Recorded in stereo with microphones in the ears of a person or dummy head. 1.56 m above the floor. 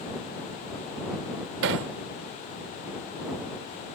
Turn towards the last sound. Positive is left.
turn(degrees=-55)  # may be behind; listen again after turning